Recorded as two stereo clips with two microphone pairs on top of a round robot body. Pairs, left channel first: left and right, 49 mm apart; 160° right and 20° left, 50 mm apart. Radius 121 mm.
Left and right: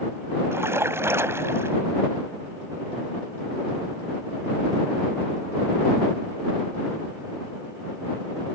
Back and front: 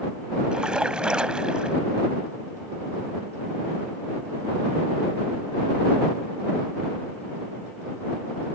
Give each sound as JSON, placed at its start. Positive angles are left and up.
{"t": 0.5, "sound": "a splash", "azimuth_deg": -55}